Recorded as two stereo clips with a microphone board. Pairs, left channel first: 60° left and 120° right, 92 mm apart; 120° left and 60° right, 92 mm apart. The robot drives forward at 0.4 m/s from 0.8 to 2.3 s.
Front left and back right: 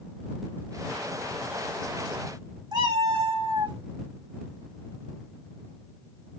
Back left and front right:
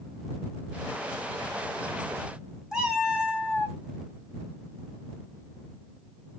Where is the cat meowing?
140° right, 1.1 m.